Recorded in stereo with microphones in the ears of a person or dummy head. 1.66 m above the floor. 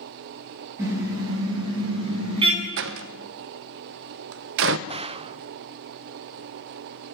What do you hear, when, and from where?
0.8 s a car horn: 15° right (ahead or behind), 6.5 m; by 2.7 s 30° right (ahead or behind), 7 m
2.8 s a door slam: 60° right (ahead or behind), 1.0 m
4.9 s a gunshot: 35° right (ahead or behind), 0.5 m